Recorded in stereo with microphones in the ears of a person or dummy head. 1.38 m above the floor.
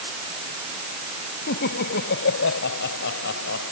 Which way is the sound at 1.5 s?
60° left (ahead or behind).